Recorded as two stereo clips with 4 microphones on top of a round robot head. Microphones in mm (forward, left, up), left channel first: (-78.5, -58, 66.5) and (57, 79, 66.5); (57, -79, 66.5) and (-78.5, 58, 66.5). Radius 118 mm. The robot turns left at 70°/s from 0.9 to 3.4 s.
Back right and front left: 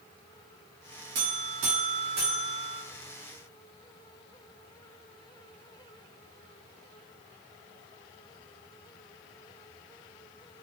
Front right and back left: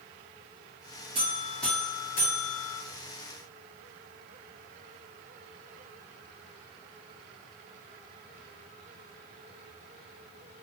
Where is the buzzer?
75° left, 0.7 m; by 2.8 s 45° right, 0.7 m.